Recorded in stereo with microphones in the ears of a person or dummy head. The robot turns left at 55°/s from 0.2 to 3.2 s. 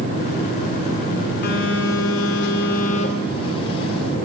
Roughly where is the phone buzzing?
Behind left.